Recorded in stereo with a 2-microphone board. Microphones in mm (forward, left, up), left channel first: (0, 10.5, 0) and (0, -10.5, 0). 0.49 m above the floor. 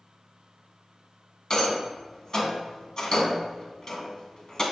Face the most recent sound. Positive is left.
turn(degrees=25)  # may be behind; listen again after turning